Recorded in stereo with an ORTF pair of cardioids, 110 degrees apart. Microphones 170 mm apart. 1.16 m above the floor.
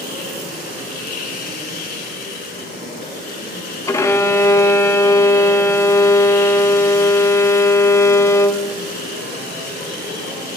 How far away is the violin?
About 0.9 m.